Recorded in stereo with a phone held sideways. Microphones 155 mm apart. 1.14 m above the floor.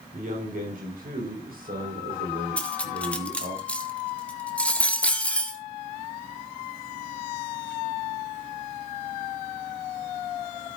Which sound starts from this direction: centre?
Cutlery clinking, at 2.6 s.